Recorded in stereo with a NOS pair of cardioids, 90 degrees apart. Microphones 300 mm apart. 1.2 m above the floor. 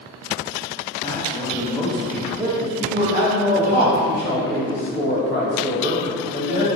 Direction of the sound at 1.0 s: 15° left.